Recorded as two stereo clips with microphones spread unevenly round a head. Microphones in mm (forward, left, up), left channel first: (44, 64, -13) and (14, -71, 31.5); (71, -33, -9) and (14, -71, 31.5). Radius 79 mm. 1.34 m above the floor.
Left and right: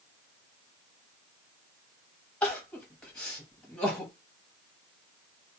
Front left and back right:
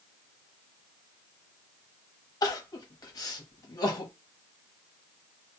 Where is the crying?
15° right, 0.9 m.